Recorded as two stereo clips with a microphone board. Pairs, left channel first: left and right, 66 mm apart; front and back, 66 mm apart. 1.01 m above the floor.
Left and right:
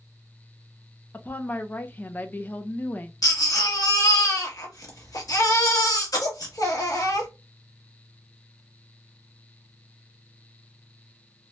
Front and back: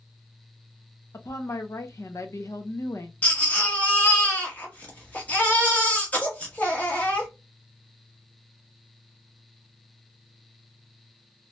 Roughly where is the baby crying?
Left.